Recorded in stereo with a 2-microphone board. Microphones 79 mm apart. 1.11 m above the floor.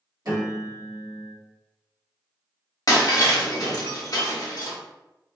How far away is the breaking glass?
About 0.8 m.